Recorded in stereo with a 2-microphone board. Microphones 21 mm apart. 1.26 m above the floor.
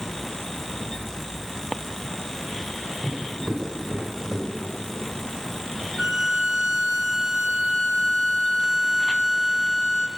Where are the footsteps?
25° right (ahead or behind), 7 m; by 4.9 s 40° right (ahead or behind), 5.5 m.